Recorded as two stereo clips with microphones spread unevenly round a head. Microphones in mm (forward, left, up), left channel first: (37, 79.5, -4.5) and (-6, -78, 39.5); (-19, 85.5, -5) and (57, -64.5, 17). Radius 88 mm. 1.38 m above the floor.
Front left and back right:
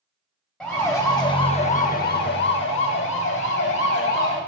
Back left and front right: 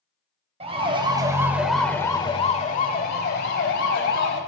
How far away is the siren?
About 3 m.